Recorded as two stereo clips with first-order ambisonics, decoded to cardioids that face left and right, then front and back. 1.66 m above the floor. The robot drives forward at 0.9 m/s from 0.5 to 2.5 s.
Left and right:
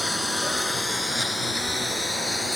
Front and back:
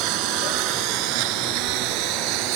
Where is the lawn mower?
175° left; by 2.6 s straight behind.